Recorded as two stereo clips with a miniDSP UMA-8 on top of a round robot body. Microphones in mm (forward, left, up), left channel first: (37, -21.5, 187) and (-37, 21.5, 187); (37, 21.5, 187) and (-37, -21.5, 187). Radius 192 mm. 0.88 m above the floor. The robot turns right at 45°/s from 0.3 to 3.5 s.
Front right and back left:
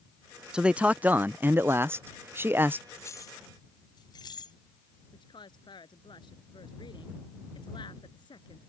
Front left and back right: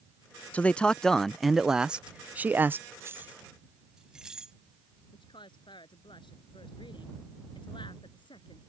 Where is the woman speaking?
5° left.